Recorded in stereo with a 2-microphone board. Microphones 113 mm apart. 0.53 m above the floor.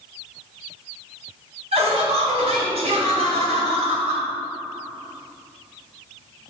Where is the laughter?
65° right (ahead or behind), 2.5 m.